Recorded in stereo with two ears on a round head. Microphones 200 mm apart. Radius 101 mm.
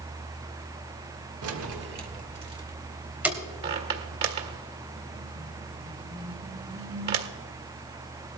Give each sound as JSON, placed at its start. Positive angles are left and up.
{"t": 1.4, "sound": "keys jangling", "side_deg": -75, "distance_m": 1.5}
{"t": 3.6, "sound": "a squeak", "side_deg": -45, "distance_m": 1.7}